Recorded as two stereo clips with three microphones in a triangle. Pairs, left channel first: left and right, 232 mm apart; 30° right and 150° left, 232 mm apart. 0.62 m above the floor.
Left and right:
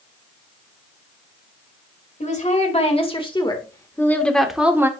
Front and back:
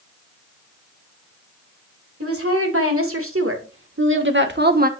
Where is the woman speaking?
145° left, 2 m; by 4.9 s 165° right, 1.2 m.